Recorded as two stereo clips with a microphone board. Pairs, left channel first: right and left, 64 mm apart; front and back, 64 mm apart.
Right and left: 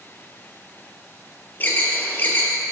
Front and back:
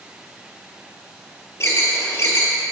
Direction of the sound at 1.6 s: 35° right.